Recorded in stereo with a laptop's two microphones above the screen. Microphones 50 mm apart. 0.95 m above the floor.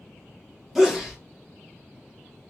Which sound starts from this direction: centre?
A sneeze, at 0.8 s.